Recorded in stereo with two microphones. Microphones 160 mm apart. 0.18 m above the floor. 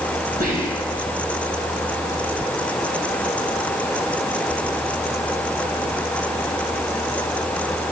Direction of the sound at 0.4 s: 60° right (ahead or behind).